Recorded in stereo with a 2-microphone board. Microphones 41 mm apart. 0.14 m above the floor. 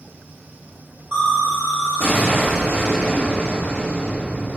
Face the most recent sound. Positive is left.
turn(degrees=-55)  # may be behind; listen again after turning